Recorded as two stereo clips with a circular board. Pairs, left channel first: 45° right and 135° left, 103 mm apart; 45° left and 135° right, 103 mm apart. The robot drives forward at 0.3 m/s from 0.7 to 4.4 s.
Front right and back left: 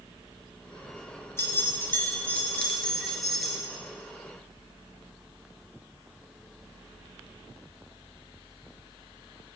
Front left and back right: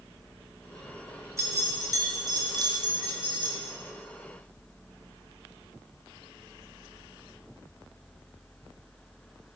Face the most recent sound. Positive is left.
turn(degrees=-140)